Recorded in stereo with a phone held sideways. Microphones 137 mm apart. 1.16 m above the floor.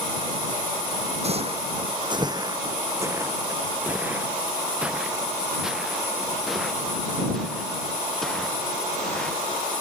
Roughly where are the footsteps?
Right.